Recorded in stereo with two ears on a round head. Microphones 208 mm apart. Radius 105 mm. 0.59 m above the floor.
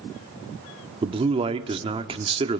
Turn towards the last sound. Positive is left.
turn(degrees=-25)  # may be behind; listen again after turning